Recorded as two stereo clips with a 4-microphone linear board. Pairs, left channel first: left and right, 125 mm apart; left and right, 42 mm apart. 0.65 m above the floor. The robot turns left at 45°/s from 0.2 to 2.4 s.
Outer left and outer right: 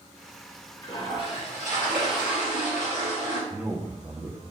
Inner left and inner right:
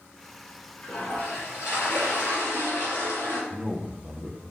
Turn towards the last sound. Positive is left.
turn(degrees=-5)  # may be behind; listen again after turning